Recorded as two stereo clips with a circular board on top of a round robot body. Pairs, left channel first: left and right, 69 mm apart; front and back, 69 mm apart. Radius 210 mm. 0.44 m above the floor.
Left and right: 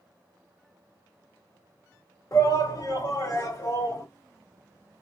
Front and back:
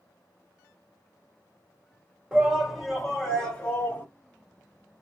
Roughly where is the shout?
Left.